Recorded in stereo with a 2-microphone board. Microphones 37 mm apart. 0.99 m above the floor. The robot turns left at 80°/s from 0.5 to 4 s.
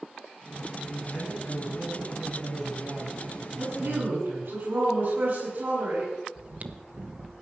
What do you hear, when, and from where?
0.9 s a man speaking: 140° left, 8.5 m; by 4.6 s 105° right, 8.5 m
3.6 s a woman speaking: 75° right, 8 m; by 6.1 s 110° right, 8 m
6.3 s chewing: 45° right (ahead or behind), 1.1 m